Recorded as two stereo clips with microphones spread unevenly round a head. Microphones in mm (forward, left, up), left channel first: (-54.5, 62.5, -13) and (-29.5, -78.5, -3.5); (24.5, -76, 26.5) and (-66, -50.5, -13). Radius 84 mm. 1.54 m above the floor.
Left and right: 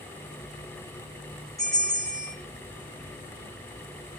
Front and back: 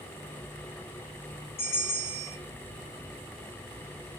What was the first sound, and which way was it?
A bell, 25° left.